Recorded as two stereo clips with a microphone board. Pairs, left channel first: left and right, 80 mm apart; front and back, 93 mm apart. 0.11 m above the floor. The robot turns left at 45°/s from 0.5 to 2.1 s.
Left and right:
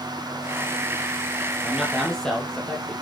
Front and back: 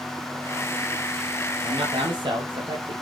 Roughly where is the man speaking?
Behind.